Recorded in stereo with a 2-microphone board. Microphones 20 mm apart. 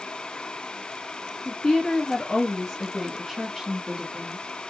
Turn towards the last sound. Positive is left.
turn(degrees=-20)  # may be behind; listen again after turning